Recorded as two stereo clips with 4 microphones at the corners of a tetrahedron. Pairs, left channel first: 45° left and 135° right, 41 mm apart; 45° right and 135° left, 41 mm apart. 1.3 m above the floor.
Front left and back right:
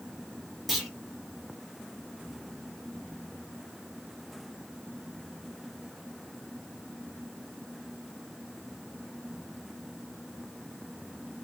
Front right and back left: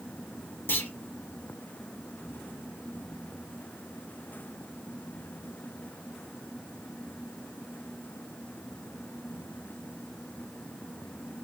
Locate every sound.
0.7 s a clunk: 45° right, 1.7 m